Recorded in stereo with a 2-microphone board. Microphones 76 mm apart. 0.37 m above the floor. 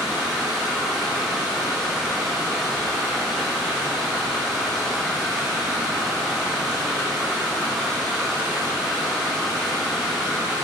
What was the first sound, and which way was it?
Running water, centre (ahead or behind).